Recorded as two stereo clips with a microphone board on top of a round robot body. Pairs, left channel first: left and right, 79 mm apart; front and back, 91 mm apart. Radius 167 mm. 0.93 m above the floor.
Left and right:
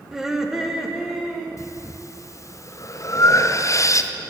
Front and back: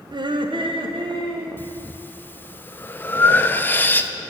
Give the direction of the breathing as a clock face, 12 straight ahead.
10 o'clock.